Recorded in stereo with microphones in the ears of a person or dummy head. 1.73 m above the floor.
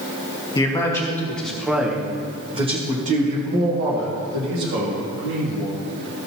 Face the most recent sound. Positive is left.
turn(degrees=-60)  # may be behind; listen again after turning